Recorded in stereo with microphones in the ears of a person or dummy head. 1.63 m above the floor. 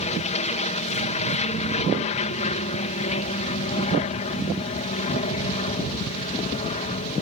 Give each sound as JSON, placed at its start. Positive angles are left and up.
{"t": 0.0, "sound": "an aircraft", "side_deg": 40}